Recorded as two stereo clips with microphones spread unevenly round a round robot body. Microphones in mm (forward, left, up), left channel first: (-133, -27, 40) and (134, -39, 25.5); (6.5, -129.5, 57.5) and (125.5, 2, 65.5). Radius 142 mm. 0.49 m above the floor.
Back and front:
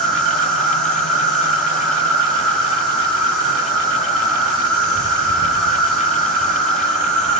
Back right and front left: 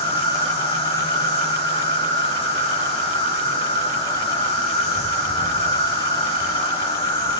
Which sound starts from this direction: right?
An insect, at 0.0 s.